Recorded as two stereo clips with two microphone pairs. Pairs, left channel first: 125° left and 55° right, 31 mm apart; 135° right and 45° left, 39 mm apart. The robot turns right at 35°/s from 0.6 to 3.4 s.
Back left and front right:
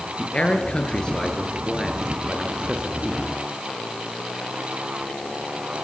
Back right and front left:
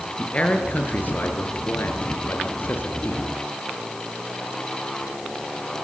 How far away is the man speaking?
About 6 m.